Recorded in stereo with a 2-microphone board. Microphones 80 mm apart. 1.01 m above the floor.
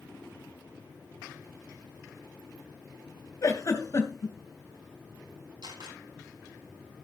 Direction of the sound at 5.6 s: 75° right (ahead or behind).